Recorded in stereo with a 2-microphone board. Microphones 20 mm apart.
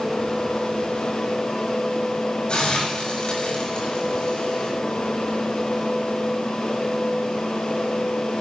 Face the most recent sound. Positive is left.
turn(degrees=65)  # may be behind; listen again after turning